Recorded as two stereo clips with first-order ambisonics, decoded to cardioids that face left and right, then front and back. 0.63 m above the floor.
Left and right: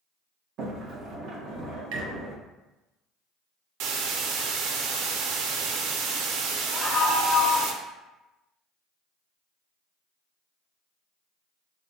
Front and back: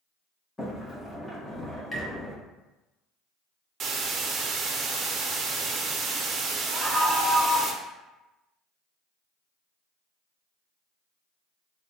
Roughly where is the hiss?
Behind right.